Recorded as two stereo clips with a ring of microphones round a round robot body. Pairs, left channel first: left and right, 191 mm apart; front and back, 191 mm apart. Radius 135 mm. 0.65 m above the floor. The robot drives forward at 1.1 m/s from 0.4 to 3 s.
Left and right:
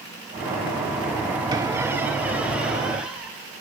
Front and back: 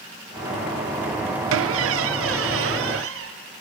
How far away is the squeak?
About 0.6 m.